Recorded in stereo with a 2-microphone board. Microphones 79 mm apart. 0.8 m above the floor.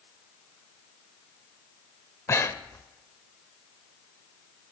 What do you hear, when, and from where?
2.3 s breathing: 35° left (ahead or behind), 0.6 m